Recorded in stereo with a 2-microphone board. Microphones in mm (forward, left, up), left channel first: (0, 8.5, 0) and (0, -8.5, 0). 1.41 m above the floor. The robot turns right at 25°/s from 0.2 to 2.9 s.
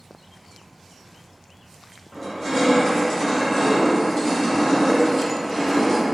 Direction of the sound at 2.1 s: 15° left (ahead or behind).